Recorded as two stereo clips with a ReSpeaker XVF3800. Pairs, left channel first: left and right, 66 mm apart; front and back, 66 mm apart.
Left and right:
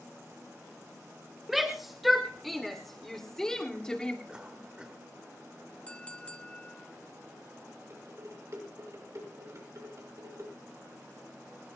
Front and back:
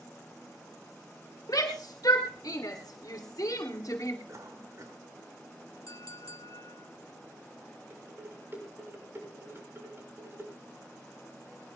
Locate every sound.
1.5 s a shout: 5° right, 3 m; by 4.2 s 15° left, 1.7 m
4.3 s a cough: 165° right, 2 m
5.9 s a clink: 20° left, 1.1 m
7.9 s dishes clattering: 125° right, 5.5 m